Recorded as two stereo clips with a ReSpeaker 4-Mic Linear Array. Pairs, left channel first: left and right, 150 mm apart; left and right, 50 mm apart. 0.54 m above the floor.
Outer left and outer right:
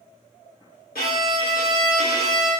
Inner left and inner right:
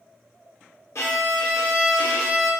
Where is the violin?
80° left, 1.0 m.